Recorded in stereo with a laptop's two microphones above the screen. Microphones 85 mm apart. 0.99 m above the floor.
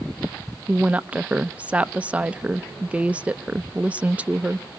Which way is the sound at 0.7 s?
15° right (ahead or behind).